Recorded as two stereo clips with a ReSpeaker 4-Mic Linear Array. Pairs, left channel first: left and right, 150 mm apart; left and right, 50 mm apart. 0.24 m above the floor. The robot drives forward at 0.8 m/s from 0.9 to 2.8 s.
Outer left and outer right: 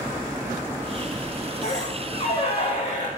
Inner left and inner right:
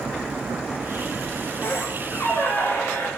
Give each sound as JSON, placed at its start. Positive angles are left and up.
{"t": 1.6, "sound": "a squeak", "side_deg": 50, "distance_m": 8.0}